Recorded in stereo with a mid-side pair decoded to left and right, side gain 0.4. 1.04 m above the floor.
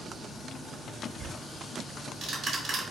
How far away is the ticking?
About 1.0 m.